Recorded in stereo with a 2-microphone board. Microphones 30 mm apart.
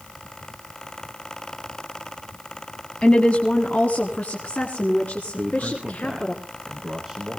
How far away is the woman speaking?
About 1.6 m.